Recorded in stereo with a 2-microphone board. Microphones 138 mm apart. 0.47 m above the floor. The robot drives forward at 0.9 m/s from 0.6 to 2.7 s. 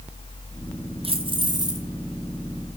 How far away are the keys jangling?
About 1.2 m.